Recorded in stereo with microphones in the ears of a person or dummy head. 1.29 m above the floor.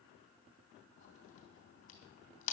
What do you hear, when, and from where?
1.0 s a crack: 35° left (ahead or behind), 3 m